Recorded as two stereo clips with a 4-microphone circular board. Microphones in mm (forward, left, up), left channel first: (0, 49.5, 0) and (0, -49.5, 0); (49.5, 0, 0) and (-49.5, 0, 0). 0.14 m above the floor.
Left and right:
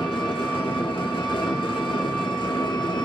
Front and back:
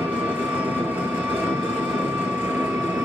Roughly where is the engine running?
Left.